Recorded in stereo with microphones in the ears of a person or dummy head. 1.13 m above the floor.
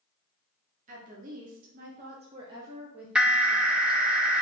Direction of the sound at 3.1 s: 10° right (ahead or behind).